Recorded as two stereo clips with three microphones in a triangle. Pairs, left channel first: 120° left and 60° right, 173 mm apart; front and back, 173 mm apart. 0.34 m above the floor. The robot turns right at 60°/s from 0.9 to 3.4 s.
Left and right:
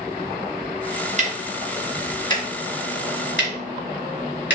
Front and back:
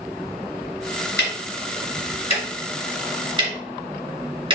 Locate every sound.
1.2 s ticking: 15° right, 2 m; by 4.6 s 120° left, 2 m